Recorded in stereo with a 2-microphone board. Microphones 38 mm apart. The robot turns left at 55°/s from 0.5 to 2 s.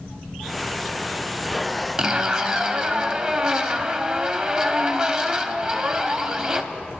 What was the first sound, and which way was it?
A zipper, 20° right (ahead or behind).